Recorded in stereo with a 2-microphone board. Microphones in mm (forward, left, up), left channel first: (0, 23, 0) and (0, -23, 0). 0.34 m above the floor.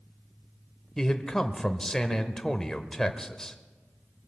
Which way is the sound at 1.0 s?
10° left (ahead or behind).